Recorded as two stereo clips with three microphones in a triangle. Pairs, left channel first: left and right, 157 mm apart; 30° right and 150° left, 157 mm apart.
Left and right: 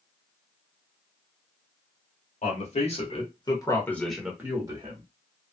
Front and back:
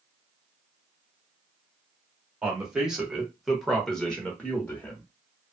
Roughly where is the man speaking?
Ahead left.